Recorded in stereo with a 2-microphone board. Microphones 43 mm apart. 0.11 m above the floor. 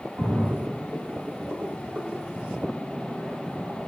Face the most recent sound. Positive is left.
turn(degrees=-70)  # may be behind; listen again after turning